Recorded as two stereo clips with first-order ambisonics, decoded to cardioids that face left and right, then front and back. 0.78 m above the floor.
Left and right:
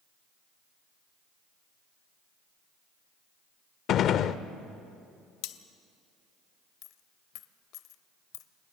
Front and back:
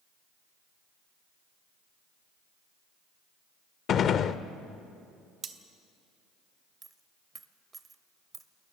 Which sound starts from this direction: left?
A dropped coin, at 6.8 s.